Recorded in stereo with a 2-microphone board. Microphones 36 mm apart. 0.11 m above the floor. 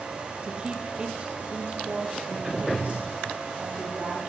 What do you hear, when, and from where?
0.4 s a woman speaking: 25° right (ahead or behind), 3 m; by 4.2 s 40° right (ahead or behind), 6 m